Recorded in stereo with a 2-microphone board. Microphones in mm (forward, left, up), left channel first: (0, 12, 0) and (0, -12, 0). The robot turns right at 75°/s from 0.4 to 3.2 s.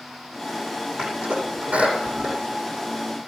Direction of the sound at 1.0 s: 50° right (ahead or behind).